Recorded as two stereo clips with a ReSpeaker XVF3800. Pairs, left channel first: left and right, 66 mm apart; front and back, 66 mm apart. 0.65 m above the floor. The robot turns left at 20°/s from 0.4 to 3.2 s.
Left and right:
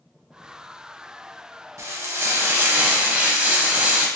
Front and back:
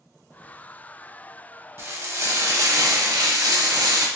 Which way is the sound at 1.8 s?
125° right.